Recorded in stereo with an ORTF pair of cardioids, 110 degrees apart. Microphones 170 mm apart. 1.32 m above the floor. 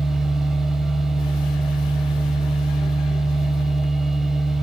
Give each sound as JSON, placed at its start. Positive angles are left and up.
{"t": 0.0, "sound": "a machine running", "azimuth_deg": -5, "distance_m": 3.0}